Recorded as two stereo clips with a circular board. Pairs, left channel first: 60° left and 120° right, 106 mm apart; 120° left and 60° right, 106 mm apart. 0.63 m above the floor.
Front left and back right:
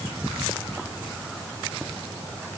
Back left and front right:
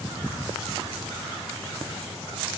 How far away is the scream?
I don't hear a scream.